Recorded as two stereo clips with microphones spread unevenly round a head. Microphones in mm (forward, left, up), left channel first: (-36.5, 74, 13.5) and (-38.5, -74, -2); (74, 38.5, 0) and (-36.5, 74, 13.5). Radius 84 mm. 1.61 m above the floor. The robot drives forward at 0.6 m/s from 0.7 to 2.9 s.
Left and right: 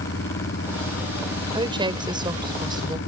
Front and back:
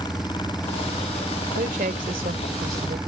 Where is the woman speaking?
150° right; by 3.0 s 155° right.